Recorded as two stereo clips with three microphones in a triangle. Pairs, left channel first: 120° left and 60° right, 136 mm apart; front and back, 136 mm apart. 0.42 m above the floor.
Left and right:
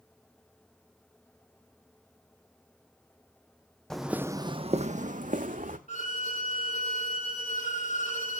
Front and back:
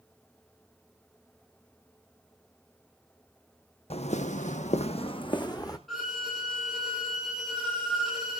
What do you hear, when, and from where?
3.9 s footsteps: 35° left, 1.0 m; by 5.8 s 65° right, 1.7 m
5.9 s a violin: 90° left, 7 m